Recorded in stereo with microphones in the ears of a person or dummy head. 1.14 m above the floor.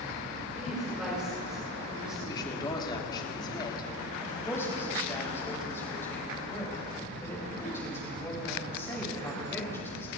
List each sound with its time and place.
0.5 s a woman speaking: centre (ahead or behind), 5 m
2.2 s a woman speaking: 25° left (ahead or behind), 2.5 m
4.2 s a woman speaking: 20° left (ahead or behind), 6 m